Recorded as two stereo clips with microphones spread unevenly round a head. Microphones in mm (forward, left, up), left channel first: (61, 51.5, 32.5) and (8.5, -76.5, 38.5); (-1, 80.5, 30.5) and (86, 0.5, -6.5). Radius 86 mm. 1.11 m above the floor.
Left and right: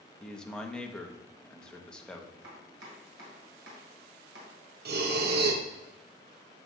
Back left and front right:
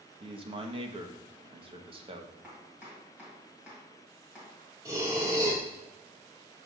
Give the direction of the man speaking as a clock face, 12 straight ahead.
1 o'clock.